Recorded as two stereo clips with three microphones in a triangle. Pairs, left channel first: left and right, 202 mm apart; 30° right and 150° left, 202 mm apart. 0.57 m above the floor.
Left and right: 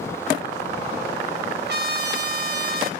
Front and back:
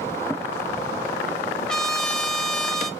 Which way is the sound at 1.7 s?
115° right.